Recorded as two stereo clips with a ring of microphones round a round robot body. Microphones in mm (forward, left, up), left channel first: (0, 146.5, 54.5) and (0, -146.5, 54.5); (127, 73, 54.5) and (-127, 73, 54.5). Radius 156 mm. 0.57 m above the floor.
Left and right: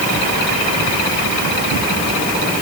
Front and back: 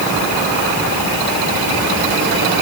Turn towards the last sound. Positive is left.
No sound to turn to.